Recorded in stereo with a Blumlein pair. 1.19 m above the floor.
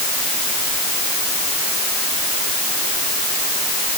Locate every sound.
Only background noise.